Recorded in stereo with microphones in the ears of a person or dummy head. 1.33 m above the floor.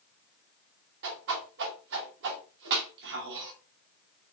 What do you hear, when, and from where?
1.0 s a whoosh: 65° right (ahead or behind), 1.1 m